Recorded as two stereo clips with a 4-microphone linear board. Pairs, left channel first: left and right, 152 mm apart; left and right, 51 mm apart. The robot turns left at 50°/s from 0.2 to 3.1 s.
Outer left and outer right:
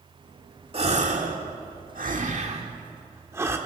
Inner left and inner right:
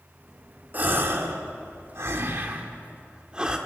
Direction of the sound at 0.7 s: 40° right (ahead or behind).